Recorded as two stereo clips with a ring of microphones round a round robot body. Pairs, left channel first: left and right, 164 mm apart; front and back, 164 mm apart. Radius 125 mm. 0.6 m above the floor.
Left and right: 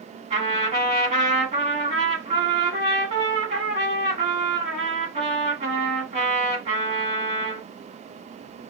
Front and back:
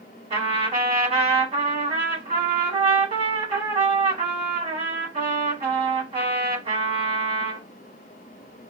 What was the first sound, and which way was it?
A trumpet, 130° right.